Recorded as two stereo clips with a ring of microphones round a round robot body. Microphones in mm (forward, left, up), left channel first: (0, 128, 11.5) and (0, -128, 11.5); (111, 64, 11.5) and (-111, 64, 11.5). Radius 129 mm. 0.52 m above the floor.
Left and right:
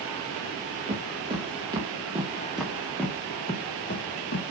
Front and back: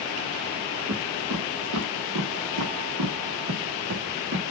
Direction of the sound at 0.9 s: 155° right.